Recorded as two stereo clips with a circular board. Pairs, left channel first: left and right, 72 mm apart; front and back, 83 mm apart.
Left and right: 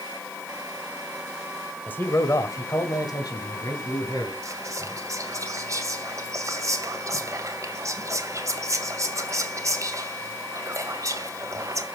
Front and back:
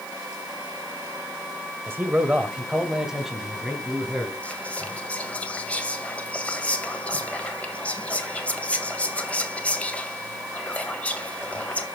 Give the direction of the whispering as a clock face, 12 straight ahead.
2 o'clock.